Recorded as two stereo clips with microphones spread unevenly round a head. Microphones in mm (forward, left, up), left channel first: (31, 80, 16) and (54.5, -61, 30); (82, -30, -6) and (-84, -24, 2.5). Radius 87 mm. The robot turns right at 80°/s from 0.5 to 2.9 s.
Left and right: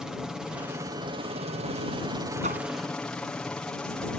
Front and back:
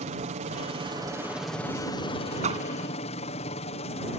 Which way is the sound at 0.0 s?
170° right.